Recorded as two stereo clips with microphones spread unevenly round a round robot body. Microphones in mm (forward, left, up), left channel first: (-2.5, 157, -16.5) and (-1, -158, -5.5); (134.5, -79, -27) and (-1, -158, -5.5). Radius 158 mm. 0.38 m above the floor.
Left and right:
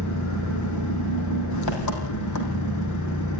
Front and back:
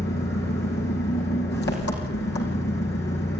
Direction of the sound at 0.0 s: 55° left.